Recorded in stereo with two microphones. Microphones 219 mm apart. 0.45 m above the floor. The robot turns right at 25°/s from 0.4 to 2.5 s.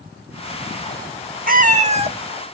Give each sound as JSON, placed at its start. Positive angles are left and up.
{"t": 1.5, "sound": "a cat meowing", "side_deg": -40, "distance_m": 0.6}